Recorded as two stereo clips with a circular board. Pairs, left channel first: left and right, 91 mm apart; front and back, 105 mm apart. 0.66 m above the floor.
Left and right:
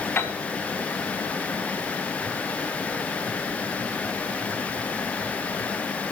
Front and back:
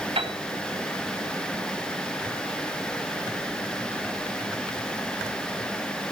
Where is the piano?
155° left, 3.5 m.